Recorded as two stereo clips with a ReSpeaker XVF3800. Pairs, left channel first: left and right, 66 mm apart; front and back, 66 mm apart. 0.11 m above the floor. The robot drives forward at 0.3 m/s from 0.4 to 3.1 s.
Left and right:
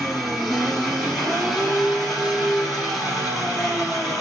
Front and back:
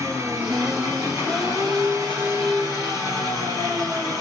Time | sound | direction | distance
0.0 | an engine running | 175° right | 1.8 m